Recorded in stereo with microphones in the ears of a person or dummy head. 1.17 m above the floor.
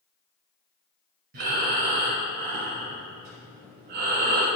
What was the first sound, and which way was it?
Breathing, 45° right (ahead or behind).